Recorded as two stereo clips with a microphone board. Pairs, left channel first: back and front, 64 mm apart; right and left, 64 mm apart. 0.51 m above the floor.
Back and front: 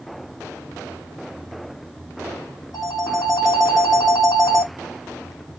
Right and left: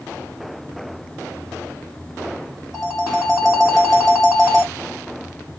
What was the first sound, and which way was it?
A phone ringing, 175° left.